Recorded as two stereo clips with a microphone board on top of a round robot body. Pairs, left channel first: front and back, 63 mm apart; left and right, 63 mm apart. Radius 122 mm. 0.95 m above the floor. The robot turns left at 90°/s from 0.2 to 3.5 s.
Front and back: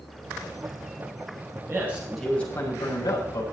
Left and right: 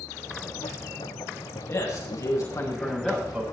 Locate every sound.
1.7 s a man speaking: 135° left, 7 m; by 3.4 s 25° right, 7 m